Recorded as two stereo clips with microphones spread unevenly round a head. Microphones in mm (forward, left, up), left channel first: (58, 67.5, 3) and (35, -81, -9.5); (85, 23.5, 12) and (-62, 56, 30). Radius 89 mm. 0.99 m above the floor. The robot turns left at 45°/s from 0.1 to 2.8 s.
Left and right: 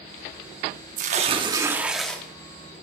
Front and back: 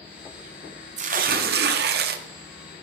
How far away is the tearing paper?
About 0.7 m.